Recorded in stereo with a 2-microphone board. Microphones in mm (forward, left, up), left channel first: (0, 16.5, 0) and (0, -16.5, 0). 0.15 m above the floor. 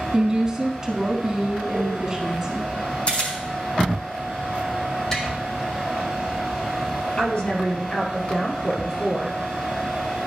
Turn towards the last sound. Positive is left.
turn(degrees=40)  # may be behind; listen again after turning